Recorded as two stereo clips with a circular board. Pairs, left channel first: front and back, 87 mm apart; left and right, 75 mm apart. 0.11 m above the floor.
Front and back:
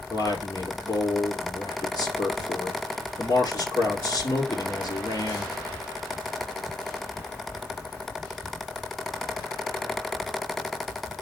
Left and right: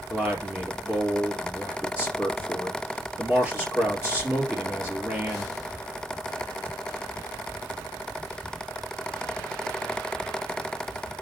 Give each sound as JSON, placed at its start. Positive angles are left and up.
{"t": 0.1, "sound": "a man speaking", "azimuth_deg": -25, "distance_m": 2.0}